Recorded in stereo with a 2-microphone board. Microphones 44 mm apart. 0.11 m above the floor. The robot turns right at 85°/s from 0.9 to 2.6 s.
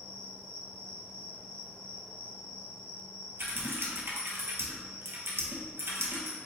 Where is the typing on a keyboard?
60° right (ahead or behind), 1.0 m.